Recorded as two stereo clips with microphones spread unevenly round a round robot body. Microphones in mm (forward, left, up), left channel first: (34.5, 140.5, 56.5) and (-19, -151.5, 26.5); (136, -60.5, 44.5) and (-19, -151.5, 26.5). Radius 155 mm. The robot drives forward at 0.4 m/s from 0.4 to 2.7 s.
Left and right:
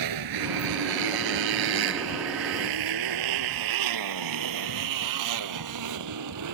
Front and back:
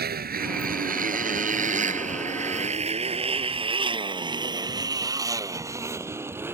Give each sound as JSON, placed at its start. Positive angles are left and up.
{"t": 0.0, "sound": "a motorcycle", "azimuth_deg": -120}